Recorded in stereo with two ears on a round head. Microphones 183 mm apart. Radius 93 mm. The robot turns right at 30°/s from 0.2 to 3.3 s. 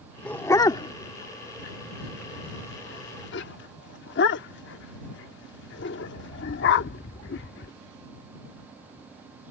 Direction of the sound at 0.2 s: 5° left (ahead or behind).